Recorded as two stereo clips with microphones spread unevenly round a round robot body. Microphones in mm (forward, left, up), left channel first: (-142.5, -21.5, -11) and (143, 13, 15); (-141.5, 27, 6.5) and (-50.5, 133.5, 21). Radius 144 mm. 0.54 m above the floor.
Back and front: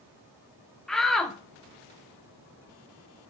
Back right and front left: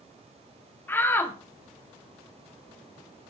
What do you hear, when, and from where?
0.9 s a shout: 100° right, 0.8 m